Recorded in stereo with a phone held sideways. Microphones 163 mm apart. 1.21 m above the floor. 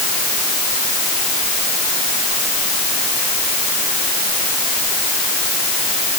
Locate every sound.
Only background noise.